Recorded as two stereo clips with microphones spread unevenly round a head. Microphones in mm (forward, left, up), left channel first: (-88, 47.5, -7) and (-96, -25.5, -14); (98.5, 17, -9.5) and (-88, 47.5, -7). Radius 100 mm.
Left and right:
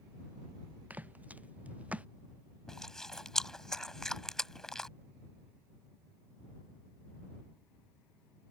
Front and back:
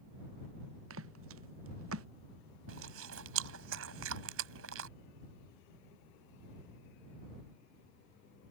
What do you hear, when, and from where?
0.9 s footsteps: 165° right; by 2.1 s 170° right
2.7 s chewing: 165° left